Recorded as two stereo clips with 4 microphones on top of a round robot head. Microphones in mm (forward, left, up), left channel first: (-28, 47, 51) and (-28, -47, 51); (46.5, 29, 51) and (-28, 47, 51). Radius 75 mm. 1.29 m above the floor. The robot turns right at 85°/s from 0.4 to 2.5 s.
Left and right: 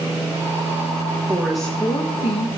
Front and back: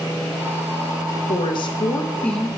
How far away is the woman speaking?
About 1.2 m.